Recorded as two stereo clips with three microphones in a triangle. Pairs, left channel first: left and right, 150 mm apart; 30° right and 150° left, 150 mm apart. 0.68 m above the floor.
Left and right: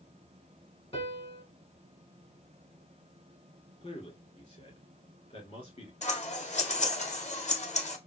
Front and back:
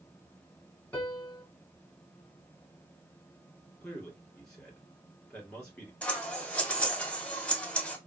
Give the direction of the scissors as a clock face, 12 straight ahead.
10 o'clock.